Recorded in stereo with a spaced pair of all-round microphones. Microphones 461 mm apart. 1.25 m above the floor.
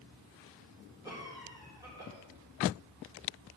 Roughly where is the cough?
Centre.